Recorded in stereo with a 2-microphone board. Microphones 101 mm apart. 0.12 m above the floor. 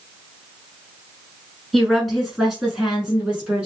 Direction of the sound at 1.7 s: Centre (ahead or behind).